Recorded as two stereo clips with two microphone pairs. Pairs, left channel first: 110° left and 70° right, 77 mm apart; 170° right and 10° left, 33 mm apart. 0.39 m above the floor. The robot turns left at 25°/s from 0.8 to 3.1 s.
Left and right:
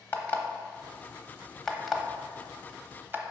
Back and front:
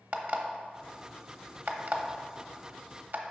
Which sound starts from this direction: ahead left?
An alarm clock, at 0.1 s.